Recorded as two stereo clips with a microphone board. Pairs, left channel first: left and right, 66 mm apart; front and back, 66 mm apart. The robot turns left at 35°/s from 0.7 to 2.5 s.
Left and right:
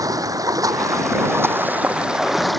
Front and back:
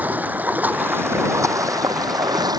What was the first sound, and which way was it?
Running water, 115° right.